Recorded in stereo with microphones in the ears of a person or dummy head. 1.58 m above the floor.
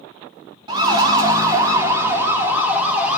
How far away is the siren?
About 2.5 m.